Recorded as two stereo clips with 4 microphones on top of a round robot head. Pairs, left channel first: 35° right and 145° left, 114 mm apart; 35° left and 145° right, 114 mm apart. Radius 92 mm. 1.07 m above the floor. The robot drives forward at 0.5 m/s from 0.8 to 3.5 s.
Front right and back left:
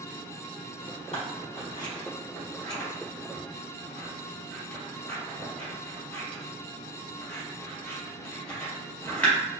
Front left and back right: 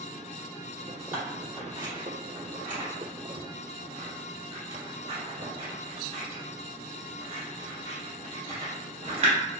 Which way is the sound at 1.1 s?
70° right.